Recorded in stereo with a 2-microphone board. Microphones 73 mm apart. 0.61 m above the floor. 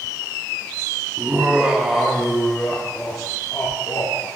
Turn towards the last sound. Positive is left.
turn(degrees=45)  # may be behind; listen again after turning